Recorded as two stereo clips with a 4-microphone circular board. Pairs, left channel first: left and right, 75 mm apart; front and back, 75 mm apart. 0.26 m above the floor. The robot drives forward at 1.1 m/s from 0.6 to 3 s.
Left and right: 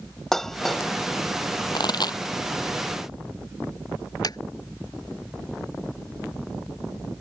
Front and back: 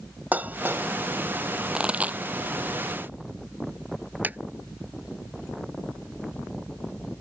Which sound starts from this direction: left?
A pop, at 1.7 s.